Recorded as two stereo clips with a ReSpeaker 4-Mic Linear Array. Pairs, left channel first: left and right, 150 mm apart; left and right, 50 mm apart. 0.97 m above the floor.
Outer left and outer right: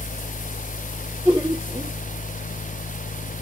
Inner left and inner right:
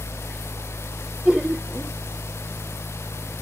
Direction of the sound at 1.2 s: 15° right (ahead or behind).